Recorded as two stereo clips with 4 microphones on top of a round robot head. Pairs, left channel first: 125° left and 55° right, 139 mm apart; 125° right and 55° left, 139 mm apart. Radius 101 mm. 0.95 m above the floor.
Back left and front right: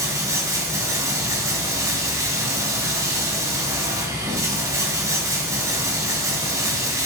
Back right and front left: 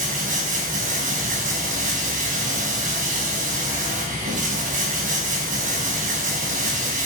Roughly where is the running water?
Ahead.